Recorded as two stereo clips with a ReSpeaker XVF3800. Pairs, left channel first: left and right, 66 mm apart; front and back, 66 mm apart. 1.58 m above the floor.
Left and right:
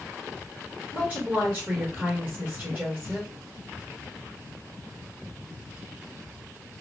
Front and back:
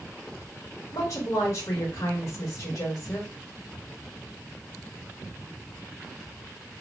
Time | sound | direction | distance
0.9 | a woman speaking | 15° right | 1.6 m